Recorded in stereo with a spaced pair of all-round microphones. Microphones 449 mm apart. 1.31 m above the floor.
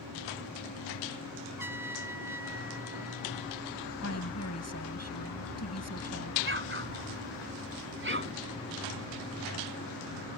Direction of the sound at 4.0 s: 35° left (ahead or behind).